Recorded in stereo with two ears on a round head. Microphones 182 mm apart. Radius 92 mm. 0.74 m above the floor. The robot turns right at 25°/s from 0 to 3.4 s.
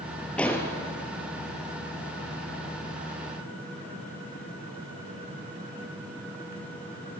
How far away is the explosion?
About 2.5 m.